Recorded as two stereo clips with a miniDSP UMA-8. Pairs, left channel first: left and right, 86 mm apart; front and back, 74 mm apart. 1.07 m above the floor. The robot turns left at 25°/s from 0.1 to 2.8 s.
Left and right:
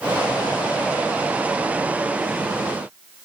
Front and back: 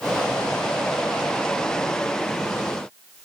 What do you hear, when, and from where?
Only background noise.